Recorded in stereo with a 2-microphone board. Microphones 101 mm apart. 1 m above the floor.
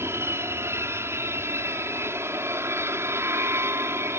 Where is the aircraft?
25° right (ahead or behind).